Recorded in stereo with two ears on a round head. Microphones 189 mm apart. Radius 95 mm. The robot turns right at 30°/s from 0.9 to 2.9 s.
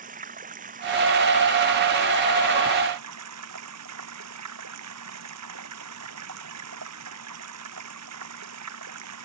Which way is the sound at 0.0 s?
140° right.